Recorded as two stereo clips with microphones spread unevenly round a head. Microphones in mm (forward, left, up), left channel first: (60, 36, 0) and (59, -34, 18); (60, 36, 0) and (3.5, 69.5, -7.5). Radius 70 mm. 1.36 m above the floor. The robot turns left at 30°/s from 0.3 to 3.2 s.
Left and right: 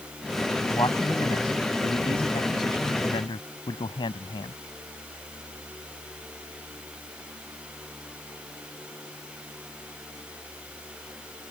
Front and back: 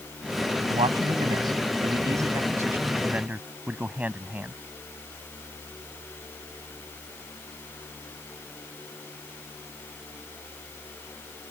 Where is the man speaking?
155° left; by 4.6 s 80° left.